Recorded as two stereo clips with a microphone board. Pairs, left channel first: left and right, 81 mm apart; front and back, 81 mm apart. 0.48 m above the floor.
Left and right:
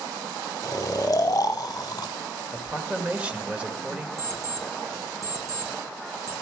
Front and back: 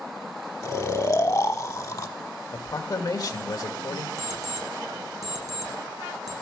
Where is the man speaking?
20° right, 1.6 m.